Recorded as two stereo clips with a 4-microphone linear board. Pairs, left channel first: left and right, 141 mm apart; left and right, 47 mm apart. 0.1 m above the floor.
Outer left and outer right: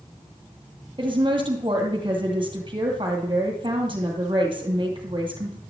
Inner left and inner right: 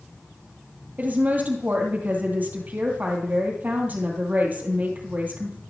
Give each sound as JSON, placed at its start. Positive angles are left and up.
{"t": 1.0, "sound": "a woman speaking", "side_deg": -35, "distance_m": 2.5}